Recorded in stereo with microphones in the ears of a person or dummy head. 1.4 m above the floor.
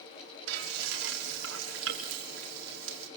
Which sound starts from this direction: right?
Frying, at 0.5 s.